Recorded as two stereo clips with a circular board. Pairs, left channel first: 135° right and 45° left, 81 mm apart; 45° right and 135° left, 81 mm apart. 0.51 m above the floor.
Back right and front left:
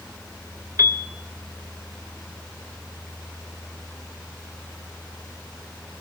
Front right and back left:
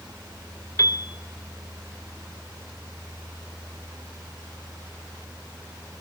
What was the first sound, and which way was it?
A piano, 5° right.